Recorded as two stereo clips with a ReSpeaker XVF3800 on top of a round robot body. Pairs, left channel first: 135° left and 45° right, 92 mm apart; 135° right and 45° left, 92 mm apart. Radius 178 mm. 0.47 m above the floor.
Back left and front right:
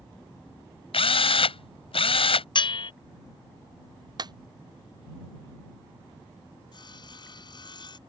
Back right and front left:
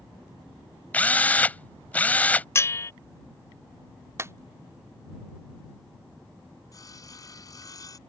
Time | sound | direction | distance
0.9 | a drill | 150° left | ?
2.5 | a bell | 165° left | ?
4.2 | a clap | 15° right | ?
6.7 | sawing | 175° left | ?